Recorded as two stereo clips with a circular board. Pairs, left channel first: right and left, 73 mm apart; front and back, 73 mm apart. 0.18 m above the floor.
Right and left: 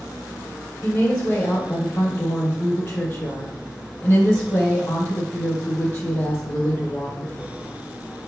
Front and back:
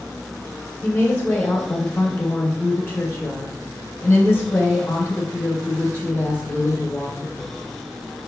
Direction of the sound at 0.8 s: 55° right.